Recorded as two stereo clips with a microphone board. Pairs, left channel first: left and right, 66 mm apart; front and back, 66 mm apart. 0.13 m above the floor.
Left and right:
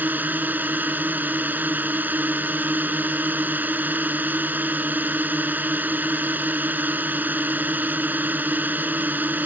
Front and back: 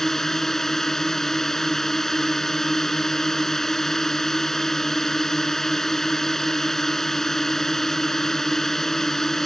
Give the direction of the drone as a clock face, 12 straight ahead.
3 o'clock.